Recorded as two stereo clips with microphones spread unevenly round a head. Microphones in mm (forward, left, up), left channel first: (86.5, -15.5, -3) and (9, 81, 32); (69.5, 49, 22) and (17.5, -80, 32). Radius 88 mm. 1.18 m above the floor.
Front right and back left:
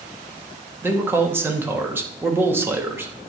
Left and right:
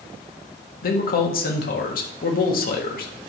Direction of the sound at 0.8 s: 55° left.